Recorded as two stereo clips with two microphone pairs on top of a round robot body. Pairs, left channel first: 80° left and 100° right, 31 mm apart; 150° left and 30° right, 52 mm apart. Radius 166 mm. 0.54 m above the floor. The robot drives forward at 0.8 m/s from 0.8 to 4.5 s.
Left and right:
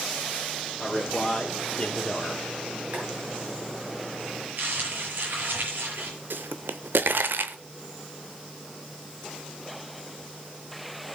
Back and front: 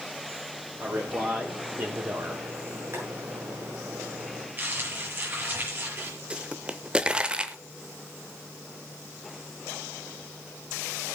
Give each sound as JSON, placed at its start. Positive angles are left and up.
{"t": 0.8, "sound": "a man speaking", "azimuth_deg": 5, "distance_m": 3.5}
{"t": 2.9, "sound": "boiling", "azimuth_deg": -60, "distance_m": 7.5}
{"t": 4.6, "sound": "crumpling", "azimuth_deg": -80, "distance_m": 6.0}
{"t": 6.3, "sound": "a pop", "azimuth_deg": -100, "distance_m": 0.5}